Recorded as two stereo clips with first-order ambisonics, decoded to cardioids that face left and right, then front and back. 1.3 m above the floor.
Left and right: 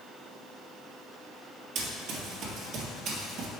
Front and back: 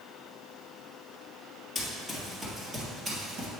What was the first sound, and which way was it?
Running footsteps, 80° right.